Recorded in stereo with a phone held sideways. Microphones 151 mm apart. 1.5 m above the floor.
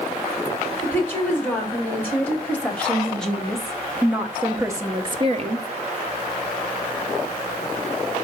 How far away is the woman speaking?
About 3.5 m.